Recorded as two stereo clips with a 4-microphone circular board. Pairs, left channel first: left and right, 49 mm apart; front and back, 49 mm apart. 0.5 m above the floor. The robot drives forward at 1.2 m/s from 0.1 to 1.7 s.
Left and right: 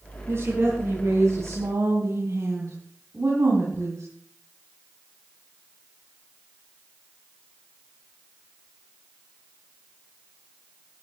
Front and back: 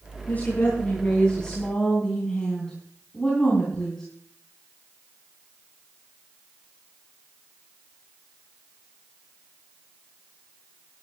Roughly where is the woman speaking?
Ahead right.